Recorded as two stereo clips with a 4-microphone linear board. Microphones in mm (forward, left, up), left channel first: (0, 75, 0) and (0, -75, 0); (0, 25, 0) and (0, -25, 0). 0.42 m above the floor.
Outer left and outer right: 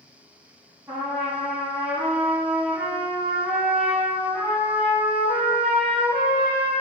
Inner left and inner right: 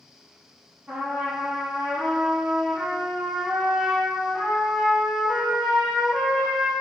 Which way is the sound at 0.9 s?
10° right (ahead or behind).